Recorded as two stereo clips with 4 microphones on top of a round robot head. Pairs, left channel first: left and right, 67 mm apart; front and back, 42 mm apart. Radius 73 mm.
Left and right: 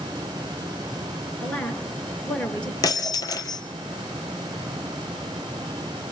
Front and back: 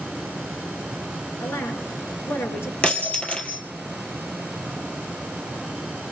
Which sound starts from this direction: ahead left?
Breaking glass, at 2.8 s.